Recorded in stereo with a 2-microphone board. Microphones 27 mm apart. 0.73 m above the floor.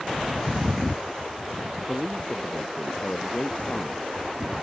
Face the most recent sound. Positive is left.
turn(degrees=60)  # may be behind; listen again after turning